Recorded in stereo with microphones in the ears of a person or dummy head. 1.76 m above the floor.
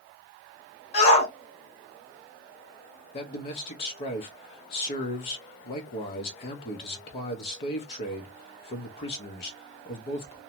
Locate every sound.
0.9 s a shout: 40° left (ahead or behind), 1.7 m
3.1 s a man speaking: 35° left (ahead or behind), 0.6 m